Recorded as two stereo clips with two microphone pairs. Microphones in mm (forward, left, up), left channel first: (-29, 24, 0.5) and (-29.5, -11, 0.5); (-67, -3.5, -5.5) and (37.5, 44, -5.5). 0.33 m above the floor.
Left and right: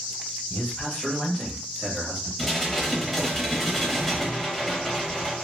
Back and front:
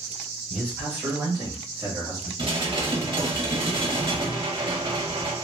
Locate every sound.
0.5 s a man speaking: 100° left, 1.6 m; by 2.3 s 5° right, 1.7 m
2.4 s dishes clattering: 5° left, 0.9 m